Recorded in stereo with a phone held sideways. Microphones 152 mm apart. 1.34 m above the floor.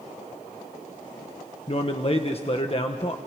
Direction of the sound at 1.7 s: 40° left (ahead or behind).